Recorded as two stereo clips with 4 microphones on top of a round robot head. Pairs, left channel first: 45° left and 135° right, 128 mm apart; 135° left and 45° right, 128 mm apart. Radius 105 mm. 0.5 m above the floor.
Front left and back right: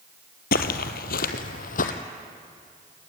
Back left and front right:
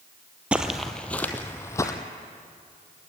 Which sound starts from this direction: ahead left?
Footsteps, at 0.5 s.